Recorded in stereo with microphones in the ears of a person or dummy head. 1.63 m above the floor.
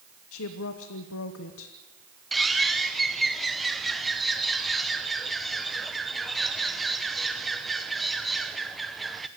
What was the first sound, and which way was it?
A woman speaking, 75° left (ahead or behind).